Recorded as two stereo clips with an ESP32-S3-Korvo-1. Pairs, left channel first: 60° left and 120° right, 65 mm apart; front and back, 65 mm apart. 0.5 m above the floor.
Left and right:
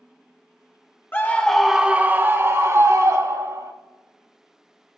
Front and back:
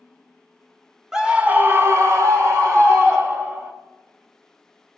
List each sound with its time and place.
1.1 s a scream: 100° left, 0.9 m; by 3.7 s 140° right, 2 m